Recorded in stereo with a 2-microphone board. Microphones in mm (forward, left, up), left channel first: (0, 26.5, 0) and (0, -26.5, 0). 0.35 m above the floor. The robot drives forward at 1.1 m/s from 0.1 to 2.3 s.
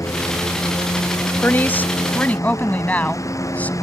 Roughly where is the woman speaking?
Left.